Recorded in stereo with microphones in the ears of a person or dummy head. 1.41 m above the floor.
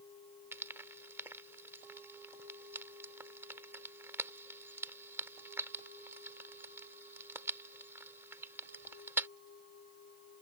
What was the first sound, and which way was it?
Frying, 15° right (ahead or behind).